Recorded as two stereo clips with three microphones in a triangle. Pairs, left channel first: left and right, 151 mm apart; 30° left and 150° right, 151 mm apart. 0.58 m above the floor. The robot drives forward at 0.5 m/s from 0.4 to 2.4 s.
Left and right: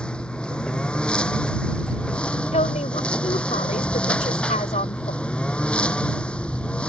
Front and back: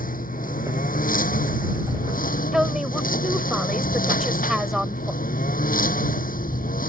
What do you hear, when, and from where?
0.0 s a lawn mower: 5° left
2.5 s a woman speaking: 125° left